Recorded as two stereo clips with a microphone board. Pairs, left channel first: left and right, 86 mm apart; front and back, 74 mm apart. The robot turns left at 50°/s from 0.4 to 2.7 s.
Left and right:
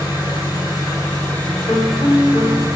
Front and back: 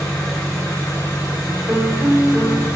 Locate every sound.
0.0 s an engine running: 65° left, 1.5 m; by 2.8 s 50° right, 1.5 m
1.7 s a piano: 115° left, 1.0 m; by 2.7 s 65° left, 1.0 m